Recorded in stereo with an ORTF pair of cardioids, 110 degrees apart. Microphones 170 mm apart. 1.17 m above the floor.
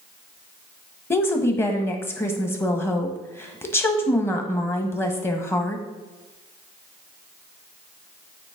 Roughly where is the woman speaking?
Ahead.